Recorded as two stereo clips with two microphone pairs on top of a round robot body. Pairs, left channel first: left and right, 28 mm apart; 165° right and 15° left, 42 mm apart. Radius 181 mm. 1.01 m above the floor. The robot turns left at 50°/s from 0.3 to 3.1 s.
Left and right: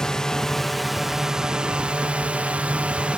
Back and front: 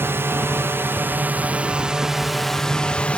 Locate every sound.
0.0 s a drone: 20° left; by 3.2 s 120° right